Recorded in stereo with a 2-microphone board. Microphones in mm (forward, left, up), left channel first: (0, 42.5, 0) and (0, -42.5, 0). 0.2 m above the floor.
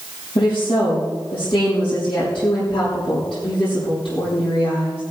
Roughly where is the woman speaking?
Left.